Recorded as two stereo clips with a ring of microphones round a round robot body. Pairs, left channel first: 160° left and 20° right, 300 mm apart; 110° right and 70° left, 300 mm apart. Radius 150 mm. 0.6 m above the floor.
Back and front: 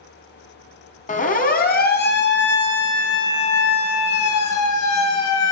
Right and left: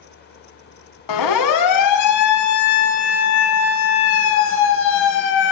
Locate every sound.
1.1 s a siren: 135° right, 5 m; by 5.5 s 165° right, 6.5 m